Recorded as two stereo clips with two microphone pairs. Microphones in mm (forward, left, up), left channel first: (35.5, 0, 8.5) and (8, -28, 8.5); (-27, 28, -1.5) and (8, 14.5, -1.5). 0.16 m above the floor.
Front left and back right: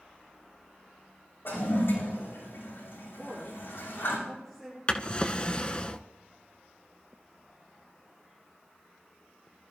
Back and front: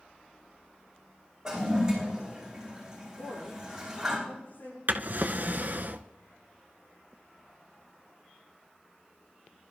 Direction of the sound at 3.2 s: 125° left.